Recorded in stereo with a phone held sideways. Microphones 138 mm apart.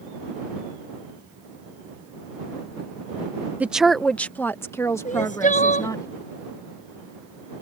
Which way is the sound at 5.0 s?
65° left (ahead or behind).